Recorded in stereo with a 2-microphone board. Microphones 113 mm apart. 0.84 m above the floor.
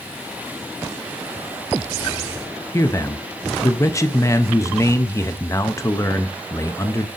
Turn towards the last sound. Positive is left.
turn(degrees=25)  # may be behind; listen again after turning